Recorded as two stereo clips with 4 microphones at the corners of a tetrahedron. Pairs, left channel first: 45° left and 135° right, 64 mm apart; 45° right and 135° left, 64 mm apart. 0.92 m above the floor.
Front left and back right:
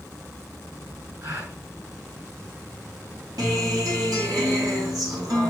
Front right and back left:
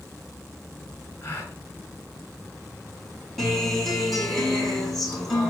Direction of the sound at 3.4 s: 135° right.